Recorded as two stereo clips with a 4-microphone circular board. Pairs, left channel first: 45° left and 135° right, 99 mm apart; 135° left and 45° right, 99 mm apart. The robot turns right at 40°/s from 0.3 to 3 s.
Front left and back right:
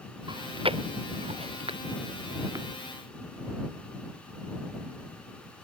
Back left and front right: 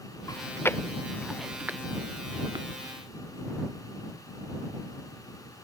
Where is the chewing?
175° right; by 2.6 s 80° right.